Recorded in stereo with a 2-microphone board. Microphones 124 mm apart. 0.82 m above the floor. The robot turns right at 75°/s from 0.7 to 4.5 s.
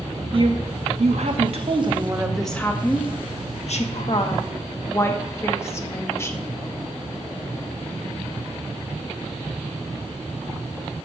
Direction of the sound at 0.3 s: 130° right.